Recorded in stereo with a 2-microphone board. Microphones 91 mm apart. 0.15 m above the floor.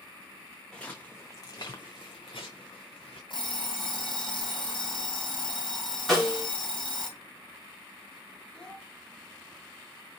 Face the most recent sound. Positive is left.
turn(degrees=10)  # may be behind; listen again after turning